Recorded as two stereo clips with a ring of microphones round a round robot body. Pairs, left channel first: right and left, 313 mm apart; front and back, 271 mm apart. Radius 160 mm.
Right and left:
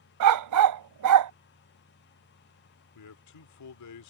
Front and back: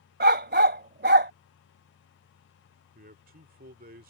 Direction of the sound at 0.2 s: 125° left.